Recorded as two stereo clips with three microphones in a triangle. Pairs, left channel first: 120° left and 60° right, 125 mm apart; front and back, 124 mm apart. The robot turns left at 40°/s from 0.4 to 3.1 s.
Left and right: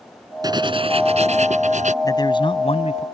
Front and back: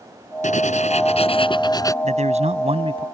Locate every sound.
0.4 s writing: 5° right; by 1.9 s 65° right
2.0 s a man speaking: straight behind; by 3.0 s 140° left